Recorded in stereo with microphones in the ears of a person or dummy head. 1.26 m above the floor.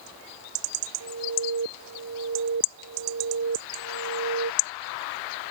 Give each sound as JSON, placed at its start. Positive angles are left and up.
{"t": 1.0, "sound": "an alarm", "side_deg": -75}